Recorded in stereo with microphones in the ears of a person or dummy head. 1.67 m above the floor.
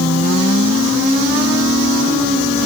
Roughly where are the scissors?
I don't hear scissors.